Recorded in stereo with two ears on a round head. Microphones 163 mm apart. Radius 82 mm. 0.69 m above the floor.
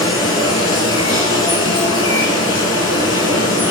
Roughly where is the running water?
Left.